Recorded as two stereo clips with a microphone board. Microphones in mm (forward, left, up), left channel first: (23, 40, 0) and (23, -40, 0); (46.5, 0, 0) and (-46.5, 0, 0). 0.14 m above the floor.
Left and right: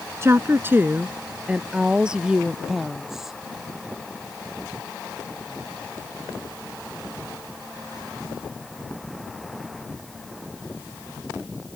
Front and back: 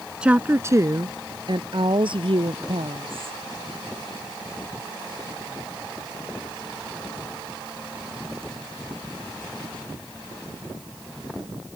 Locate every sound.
0.2 s a woman speaking: 105° right; by 3.4 s 175° right